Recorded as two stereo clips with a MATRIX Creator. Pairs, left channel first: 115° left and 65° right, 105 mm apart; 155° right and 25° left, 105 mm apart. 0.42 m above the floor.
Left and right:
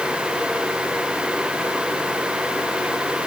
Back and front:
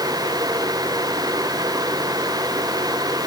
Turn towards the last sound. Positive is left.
No sound to turn to.